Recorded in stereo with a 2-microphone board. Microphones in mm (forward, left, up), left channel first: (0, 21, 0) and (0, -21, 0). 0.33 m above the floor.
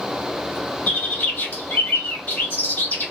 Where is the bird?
45° left (ahead or behind), 1.4 m.